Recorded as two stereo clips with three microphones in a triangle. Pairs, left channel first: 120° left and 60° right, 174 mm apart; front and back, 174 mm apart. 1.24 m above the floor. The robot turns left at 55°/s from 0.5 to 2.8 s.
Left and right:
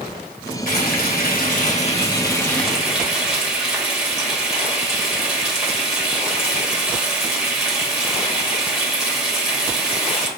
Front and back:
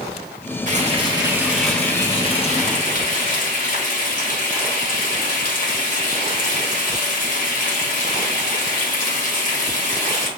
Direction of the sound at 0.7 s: 145° left.